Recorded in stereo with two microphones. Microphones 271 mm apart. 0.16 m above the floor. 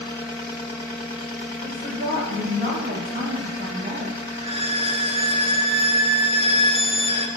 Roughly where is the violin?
Right.